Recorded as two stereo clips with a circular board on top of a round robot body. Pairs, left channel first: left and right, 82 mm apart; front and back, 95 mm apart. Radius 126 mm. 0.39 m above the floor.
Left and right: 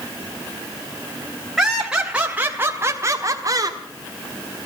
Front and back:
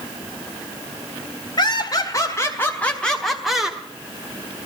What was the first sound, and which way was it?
Laughter, 5° right.